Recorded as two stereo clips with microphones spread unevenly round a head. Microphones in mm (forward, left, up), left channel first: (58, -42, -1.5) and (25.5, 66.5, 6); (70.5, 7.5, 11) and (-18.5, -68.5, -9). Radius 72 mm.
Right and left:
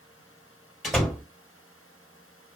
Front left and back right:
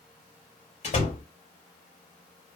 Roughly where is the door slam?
Ahead.